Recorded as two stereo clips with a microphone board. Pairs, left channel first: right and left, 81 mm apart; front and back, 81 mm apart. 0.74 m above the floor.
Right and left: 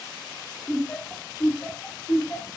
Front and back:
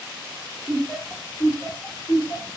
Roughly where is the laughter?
Behind.